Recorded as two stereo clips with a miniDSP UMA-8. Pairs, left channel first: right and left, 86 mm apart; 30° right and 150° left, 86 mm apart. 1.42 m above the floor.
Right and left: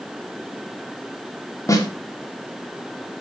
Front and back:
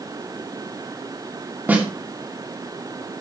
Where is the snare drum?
140° right, 2.5 m.